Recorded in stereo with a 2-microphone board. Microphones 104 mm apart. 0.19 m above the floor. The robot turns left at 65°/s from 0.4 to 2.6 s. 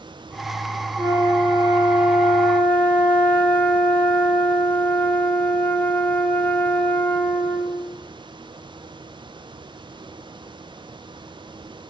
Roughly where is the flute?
Right.